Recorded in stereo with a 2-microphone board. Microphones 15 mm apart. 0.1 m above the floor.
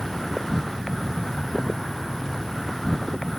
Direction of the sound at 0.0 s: 25° left (ahead or behind).